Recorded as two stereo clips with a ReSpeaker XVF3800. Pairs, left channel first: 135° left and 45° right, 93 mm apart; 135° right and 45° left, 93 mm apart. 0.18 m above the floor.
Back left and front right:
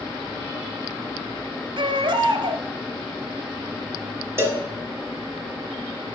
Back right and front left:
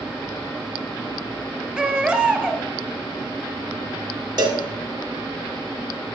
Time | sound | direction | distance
1.8 | a baby crying | 30° right | 1.0 m
4.4 | a cowbell | 15° left | 1.4 m